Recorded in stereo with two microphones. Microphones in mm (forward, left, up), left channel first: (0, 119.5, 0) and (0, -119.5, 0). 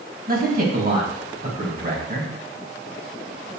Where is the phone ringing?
No phone ringing in this recording.